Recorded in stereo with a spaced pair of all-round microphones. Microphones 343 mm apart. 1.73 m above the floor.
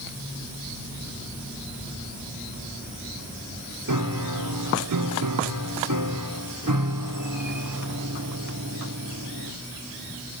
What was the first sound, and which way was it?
A piano, 60° right (ahead or behind).